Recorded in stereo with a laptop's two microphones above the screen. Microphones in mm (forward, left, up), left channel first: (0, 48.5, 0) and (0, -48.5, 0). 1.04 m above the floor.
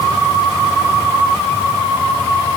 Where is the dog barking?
I don't hear a dog barking.